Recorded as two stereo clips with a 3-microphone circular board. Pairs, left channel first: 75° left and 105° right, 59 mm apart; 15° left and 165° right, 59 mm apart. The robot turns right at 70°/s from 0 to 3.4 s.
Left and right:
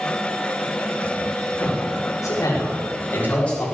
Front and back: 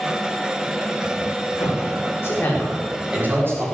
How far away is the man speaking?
About 5.5 m.